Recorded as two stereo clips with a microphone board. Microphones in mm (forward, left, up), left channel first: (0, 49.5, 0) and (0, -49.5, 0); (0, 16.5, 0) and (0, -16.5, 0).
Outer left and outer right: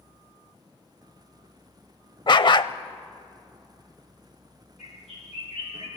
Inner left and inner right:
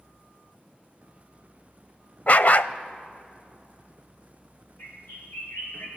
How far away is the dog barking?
About 0.5 m.